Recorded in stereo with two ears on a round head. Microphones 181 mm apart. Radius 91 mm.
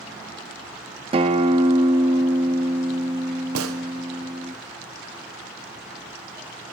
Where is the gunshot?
80° right, 1.1 m.